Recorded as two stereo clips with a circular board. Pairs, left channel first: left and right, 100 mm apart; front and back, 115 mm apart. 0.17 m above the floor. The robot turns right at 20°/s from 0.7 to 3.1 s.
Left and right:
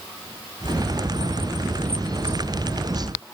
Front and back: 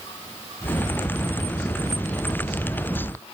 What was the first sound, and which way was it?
Only background noise.